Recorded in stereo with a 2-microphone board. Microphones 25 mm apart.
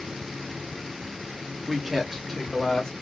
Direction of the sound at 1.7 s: 20° right (ahead or behind).